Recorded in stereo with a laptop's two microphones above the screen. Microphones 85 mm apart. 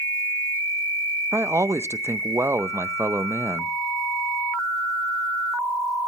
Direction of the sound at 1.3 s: 30° right (ahead or behind).